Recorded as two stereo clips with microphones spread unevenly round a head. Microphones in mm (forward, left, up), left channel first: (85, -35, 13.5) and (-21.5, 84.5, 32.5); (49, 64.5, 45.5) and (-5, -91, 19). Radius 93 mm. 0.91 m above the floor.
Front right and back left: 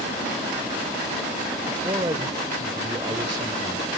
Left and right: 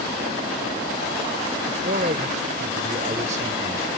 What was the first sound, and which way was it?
A man speaking, 160° right.